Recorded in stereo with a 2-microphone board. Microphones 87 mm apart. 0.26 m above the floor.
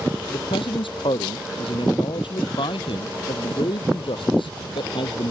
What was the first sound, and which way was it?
A man speaking, 75° left (ahead or behind).